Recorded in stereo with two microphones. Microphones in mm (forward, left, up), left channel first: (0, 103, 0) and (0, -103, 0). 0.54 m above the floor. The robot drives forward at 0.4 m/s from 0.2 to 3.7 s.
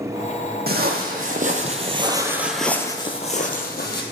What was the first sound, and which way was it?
Footsteps, 50° right (ahead or behind).